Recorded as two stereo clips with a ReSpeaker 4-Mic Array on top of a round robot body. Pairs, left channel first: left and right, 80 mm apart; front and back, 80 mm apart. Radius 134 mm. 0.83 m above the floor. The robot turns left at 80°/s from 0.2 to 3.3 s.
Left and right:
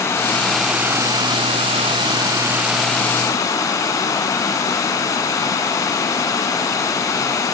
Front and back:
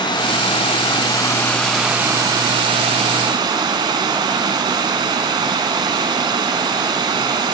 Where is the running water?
35° left, 1.5 m; by 7.5 s 145° left, 1.5 m.